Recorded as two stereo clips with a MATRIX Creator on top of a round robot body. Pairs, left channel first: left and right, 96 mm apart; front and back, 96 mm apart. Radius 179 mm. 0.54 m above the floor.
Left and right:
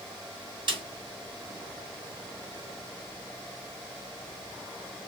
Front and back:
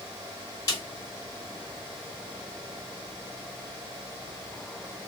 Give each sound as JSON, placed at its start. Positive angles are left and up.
{"t": 0.7, "sound": "a snare drum", "azimuth_deg": -50, "distance_m": 4.5}